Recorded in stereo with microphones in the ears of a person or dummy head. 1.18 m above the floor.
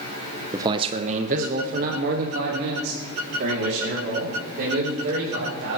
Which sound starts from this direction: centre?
A man speaking, at 0.5 s.